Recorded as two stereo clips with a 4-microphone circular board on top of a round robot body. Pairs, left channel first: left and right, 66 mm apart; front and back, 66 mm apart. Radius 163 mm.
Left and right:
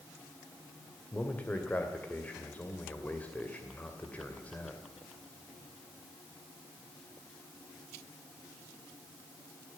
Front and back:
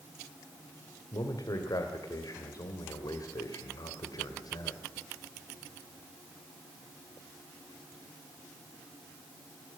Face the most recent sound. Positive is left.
turn(degrees=20)